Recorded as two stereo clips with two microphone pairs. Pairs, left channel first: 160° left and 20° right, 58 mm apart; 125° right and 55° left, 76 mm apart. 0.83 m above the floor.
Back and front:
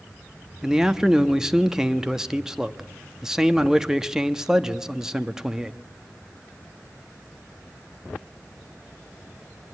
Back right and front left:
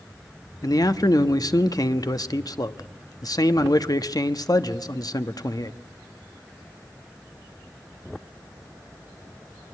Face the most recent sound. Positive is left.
turn(degrees=-100)